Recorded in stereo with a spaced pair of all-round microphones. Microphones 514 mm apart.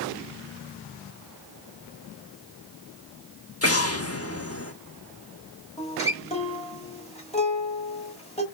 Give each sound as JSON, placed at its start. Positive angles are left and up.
{"t": 3.6, "sound": "an explosion", "side_deg": 30, "distance_m": 0.9}
{"t": 5.8, "sound": "a guitar", "side_deg": 10, "distance_m": 1.1}